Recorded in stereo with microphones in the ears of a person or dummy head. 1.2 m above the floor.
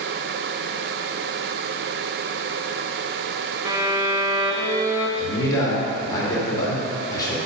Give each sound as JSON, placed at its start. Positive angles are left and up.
{"t": 3.6, "sound": "a violin", "side_deg": -25, "distance_m": 1.1}
{"t": 5.2, "sound": "a man speaking", "side_deg": 25, "distance_m": 2.5}